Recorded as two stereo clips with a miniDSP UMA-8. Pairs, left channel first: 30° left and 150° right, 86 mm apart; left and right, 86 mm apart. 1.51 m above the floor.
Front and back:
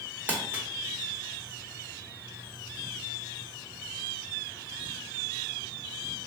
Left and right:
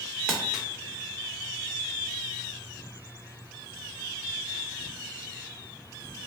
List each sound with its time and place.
0.3 s crumpling: 155° right, 1.1 m